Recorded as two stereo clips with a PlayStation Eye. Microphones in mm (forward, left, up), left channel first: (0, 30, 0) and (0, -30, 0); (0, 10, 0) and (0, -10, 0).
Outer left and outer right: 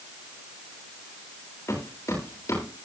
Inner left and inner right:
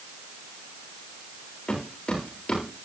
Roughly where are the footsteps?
Left.